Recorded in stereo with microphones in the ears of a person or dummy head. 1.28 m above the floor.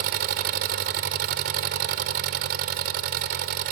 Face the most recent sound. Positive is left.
turn(degrees=-45)  # may be behind; listen again after turning